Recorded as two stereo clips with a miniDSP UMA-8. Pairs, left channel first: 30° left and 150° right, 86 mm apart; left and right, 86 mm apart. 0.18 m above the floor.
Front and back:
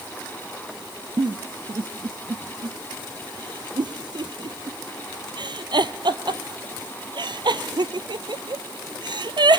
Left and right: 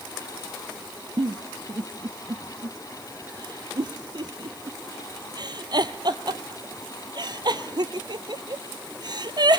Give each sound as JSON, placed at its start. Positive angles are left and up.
{"t": 1.2, "sound": "a giggle", "azimuth_deg": -125, "distance_m": 0.7}